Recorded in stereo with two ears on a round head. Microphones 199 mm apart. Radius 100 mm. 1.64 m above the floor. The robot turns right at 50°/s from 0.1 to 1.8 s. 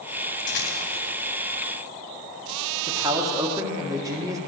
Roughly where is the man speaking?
Centre.